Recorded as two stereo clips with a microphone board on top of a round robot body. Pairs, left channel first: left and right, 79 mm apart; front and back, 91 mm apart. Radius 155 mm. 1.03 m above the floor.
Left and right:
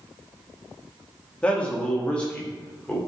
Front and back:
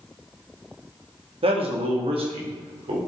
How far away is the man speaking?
About 1.9 m.